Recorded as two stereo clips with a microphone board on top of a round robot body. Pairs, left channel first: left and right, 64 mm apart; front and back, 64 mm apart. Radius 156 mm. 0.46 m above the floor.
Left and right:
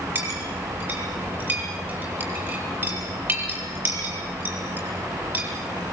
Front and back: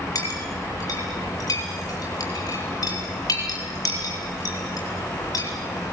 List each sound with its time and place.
0.1 s a clink: 30° right, 7.5 m